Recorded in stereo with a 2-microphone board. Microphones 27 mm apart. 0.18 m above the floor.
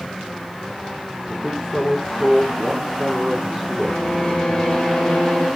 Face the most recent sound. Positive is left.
turn(degrees=45)  # may be behind; listen again after turning